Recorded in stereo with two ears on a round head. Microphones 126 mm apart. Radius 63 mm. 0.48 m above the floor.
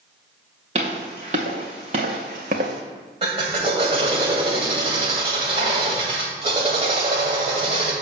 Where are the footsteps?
50° right (ahead or behind), 3 m; by 2.8 s 65° right (ahead or behind), 1.3 m.